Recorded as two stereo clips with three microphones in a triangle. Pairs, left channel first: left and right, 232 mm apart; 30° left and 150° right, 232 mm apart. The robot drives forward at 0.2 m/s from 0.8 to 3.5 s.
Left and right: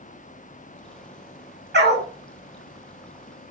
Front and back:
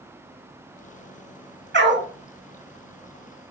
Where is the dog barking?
125° right, 0.6 m; by 2.1 s 130° right, 0.6 m.